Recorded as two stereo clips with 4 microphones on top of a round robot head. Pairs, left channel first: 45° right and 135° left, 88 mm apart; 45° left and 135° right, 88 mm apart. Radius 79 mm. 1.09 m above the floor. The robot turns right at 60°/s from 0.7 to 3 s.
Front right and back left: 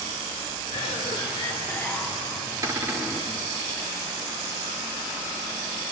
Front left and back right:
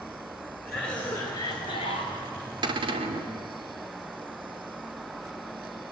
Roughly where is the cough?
Ahead right.